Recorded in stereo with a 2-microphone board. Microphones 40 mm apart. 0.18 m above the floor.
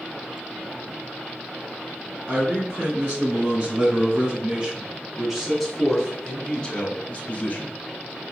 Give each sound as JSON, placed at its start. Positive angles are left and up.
{"t": 2.3, "sound": "a man speaking", "side_deg": -55, "distance_m": 3.0}